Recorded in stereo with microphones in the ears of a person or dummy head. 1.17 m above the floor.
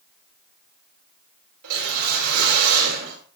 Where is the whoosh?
75° right (ahead or behind), 4 m.